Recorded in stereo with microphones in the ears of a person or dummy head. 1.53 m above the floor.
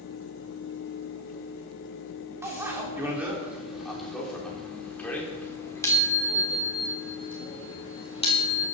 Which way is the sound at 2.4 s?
20° right (ahead or behind).